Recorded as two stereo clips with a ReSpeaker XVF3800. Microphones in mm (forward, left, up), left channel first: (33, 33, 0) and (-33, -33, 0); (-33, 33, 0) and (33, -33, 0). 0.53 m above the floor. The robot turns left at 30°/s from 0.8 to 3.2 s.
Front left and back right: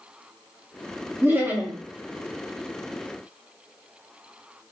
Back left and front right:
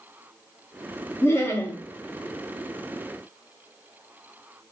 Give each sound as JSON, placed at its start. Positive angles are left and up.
{"t": 1.2, "sound": "laughter", "azimuth_deg": 180, "distance_m": 0.8}